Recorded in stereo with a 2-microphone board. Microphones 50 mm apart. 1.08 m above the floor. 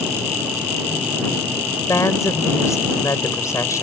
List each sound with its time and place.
1.9 s a woman speaking: 80° left